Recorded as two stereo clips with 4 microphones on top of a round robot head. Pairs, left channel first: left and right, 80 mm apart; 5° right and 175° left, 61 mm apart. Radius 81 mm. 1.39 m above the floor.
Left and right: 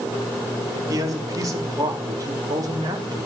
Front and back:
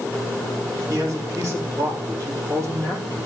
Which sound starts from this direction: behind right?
A man speaking, at 0.9 s.